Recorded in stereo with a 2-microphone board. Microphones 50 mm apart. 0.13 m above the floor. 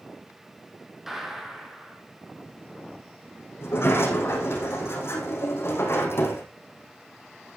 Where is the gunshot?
10° right (ahead or behind), 2.5 m.